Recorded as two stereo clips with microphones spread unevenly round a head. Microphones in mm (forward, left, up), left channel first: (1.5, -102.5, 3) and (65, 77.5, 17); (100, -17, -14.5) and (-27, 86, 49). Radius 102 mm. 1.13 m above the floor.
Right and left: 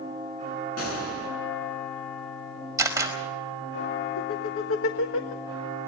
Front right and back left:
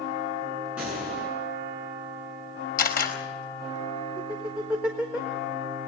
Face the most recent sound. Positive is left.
turn(degrees=-130)